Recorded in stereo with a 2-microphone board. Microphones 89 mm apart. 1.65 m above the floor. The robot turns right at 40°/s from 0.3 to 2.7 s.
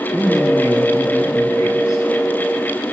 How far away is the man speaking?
About 4.5 m.